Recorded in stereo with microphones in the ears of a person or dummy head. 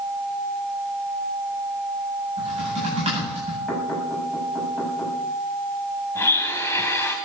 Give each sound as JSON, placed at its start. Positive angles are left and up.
{"t": 2.4, "sound": "typing on a keyboard", "side_deg": -30, "distance_m": 9.0}
{"t": 3.7, "sound": "knocking", "side_deg": 0, "distance_m": 7.0}
{"t": 6.2, "sound": "a blender", "side_deg": 15, "distance_m": 2.5}